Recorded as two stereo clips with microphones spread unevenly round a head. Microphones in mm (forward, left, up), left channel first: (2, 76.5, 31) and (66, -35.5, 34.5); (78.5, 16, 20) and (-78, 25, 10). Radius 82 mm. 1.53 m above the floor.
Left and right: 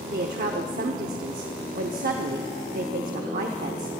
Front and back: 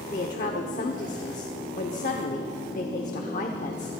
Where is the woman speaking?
50° right, 0.8 m.